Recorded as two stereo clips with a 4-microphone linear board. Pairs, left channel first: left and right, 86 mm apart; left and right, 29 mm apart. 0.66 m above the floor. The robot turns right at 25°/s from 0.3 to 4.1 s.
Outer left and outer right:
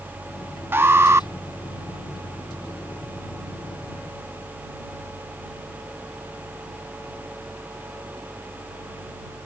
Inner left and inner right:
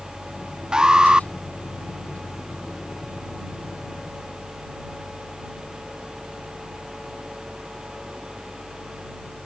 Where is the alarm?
25° right (ahead or behind); by 1.3 s 35° right (ahead or behind).